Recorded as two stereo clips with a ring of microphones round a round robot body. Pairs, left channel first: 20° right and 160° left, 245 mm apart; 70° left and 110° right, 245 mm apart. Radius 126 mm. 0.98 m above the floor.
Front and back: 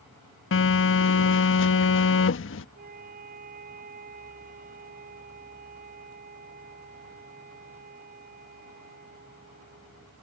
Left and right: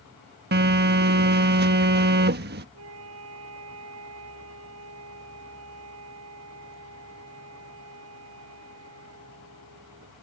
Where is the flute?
145° right.